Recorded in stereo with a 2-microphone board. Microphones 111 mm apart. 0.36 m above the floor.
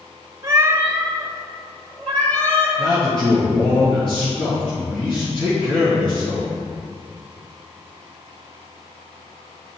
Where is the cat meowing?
35° right (ahead or behind), 0.8 m; by 2.7 s 15° left (ahead or behind), 1.9 m.